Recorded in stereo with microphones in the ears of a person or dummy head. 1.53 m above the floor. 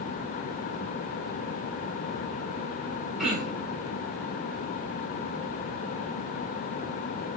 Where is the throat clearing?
Centre (ahead or behind), 3.5 m.